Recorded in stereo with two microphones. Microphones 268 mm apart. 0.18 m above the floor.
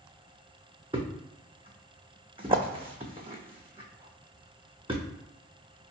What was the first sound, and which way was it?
A thud, 20° right (ahead or behind).